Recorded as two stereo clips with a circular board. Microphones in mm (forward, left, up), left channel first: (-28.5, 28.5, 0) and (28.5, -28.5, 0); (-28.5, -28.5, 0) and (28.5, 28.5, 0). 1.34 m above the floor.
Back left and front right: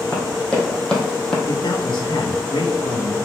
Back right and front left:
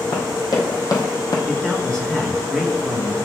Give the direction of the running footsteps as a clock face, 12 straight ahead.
5 o'clock.